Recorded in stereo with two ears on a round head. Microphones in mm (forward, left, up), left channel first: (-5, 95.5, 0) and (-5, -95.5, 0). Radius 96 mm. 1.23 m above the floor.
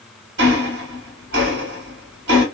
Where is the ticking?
55° right (ahead or behind), 1.6 m.